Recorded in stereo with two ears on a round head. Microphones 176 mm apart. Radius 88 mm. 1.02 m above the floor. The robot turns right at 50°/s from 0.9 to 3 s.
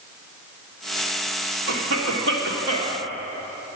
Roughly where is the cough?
Right.